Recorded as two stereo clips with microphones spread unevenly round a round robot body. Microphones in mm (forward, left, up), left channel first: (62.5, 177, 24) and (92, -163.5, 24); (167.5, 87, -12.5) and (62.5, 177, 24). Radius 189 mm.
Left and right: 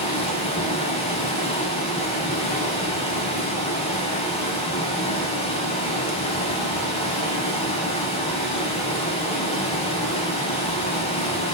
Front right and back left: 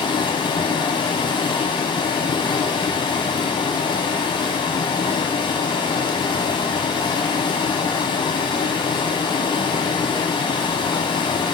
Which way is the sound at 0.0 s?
20° left.